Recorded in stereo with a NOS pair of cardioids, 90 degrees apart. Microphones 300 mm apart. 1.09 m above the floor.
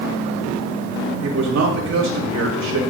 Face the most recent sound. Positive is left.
turn(degrees=-65)